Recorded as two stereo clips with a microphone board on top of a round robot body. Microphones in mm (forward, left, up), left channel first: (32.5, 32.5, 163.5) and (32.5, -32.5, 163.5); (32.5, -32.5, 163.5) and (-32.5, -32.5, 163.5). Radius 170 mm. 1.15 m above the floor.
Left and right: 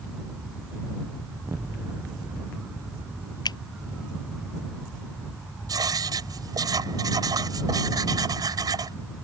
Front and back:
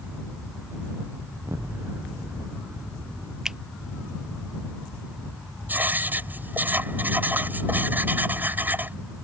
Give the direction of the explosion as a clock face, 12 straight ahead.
5 o'clock.